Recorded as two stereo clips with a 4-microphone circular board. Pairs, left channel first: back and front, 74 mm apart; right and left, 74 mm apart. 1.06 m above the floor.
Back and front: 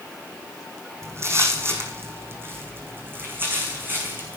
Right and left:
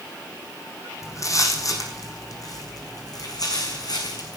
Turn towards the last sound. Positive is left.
turn(degrees=-65)